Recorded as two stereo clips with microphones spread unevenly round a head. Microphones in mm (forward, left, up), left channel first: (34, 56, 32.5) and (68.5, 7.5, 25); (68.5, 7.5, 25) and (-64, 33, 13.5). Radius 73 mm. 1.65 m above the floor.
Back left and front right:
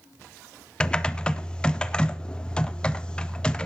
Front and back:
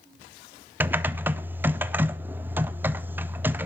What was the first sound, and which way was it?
Typing on a keyboard, 100° left.